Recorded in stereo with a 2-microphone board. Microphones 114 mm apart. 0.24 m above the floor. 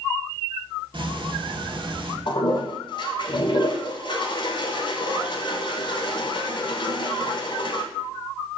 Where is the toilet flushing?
45° left (ahead or behind), 0.6 m.